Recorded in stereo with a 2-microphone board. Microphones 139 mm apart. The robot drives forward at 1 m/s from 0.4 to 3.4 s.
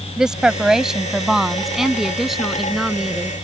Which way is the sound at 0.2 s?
5° right (ahead or behind).